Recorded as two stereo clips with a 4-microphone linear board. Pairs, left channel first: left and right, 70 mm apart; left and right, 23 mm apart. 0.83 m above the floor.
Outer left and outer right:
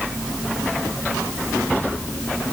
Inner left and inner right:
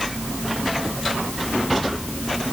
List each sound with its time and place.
Only background noise.